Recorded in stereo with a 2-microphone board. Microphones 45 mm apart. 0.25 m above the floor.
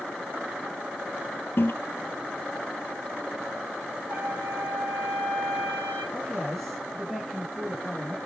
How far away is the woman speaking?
About 9 m.